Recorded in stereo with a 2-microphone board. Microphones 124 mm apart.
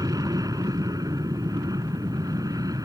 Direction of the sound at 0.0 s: 30° right (ahead or behind).